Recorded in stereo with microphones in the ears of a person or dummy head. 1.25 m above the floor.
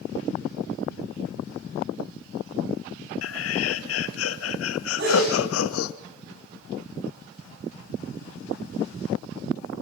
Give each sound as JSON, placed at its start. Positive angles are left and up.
{"t": 3.2, "sound": "laughter", "side_deg": 80, "distance_m": 1.2}
{"t": 5.0, "sound": "a sneeze", "side_deg": -65, "distance_m": 9.5}